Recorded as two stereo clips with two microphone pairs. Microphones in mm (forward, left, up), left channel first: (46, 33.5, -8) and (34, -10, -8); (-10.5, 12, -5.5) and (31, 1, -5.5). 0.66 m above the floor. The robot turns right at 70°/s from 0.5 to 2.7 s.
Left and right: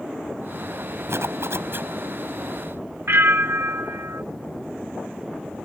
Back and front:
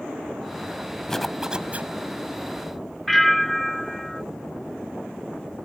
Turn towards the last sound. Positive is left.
turn(degrees=-110)